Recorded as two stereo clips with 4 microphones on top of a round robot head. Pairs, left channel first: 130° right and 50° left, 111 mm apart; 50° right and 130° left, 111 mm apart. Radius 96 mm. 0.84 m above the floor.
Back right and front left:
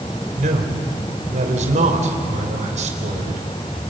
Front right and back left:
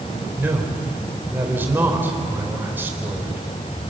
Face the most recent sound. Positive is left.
turn(degrees=55)